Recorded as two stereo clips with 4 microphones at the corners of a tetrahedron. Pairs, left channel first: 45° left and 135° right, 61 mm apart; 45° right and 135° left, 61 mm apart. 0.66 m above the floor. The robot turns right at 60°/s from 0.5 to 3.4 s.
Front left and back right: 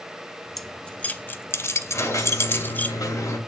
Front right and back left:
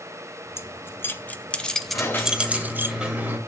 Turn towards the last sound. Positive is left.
turn(degrees=85)